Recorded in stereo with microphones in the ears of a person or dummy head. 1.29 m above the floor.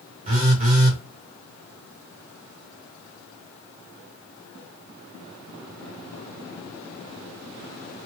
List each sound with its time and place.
0.2 s a phone buzzing: 40° right (ahead or behind), 1.0 m